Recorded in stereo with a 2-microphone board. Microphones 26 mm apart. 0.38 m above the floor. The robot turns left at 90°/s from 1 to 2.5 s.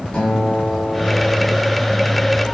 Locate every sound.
0.1 s a guitar: 140° left, 6 m; by 1.5 s 95° left, 6 m